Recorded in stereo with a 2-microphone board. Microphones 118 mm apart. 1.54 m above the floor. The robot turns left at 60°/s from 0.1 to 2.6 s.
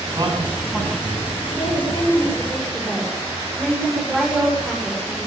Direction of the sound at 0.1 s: 35° right (ahead or behind).